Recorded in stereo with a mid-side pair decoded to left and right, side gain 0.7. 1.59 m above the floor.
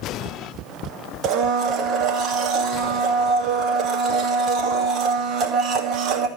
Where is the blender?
45° right, 2.5 m.